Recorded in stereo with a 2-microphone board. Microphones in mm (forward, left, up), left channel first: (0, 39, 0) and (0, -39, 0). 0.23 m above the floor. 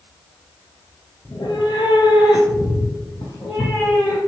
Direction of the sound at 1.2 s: 55° left (ahead or behind).